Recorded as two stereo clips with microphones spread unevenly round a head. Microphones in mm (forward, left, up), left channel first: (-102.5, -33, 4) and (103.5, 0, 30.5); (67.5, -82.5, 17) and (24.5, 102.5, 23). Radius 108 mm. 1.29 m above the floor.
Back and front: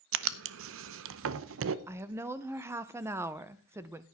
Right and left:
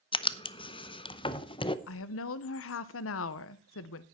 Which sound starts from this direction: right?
A woman speaking, at 1.9 s.